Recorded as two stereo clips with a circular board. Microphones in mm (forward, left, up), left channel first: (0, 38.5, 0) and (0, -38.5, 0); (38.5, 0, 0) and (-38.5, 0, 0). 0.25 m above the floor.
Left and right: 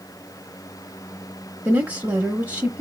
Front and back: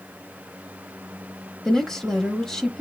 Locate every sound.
1.6 s a woman speaking: 75° right, 0.9 m